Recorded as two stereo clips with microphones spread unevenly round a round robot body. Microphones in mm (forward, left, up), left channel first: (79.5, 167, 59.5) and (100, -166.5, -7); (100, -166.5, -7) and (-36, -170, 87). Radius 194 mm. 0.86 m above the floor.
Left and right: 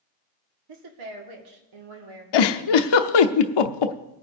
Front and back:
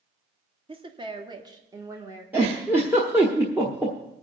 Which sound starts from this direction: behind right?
A woman speaking, at 0.7 s.